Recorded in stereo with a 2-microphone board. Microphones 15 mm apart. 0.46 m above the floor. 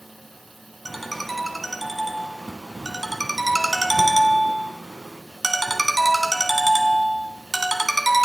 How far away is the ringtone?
About 1.6 m.